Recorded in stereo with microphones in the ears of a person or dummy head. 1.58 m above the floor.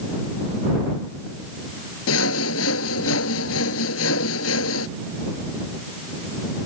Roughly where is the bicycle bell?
I don't hear a bicycle bell.